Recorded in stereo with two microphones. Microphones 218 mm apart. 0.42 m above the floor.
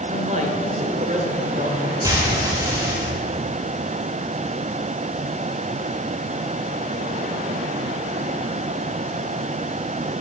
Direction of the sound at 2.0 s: 15° right (ahead or behind).